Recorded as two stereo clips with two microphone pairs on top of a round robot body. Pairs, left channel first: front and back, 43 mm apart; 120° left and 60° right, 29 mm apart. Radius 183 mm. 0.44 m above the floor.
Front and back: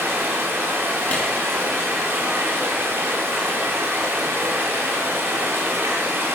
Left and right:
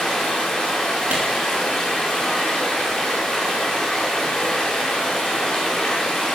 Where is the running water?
165° right, 3 m.